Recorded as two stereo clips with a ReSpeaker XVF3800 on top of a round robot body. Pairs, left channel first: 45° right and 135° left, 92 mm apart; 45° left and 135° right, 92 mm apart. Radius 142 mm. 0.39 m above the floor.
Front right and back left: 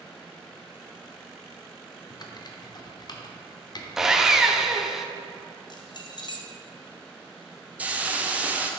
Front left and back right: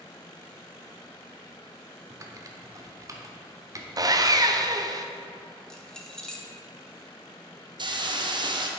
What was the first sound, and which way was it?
Typing on a keyboard, 85° right.